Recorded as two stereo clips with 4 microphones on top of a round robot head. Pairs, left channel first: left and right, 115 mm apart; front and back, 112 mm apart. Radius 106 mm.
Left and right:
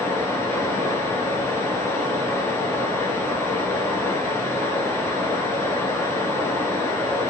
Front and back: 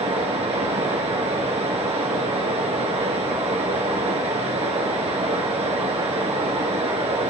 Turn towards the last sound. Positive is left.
turn(degrees=155)